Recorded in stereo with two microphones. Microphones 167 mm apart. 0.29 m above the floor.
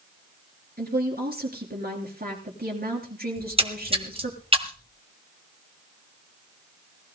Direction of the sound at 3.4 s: 35° right (ahead or behind).